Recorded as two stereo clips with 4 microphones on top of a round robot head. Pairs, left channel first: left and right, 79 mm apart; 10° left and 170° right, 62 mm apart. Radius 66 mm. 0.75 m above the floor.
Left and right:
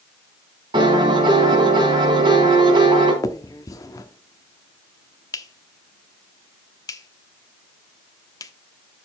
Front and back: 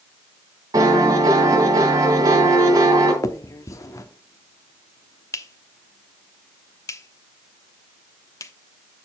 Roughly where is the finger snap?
Ahead left.